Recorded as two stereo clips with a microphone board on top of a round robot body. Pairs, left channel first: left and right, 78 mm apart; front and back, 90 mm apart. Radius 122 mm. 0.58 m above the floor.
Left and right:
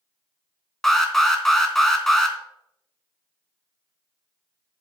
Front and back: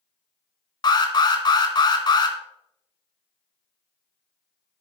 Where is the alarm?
5° left, 2.5 m.